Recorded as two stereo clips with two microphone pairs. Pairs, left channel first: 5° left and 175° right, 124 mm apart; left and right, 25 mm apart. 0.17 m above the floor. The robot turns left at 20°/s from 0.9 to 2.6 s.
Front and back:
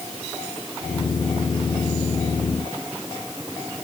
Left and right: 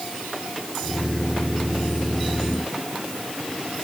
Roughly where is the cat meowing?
I don't hear a cat meowing.